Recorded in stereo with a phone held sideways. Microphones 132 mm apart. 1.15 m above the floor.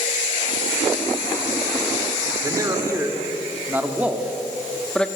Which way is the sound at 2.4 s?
25° right (ahead or behind).